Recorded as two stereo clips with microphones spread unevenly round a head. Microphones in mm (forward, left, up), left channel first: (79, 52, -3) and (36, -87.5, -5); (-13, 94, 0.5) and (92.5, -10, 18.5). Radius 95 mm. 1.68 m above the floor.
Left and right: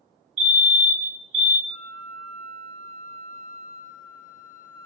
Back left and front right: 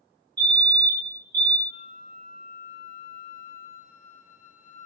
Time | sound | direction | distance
0.4 | a fire alarm | 110° right | 0.8 m
1.7 | a flute | 100° left | 0.8 m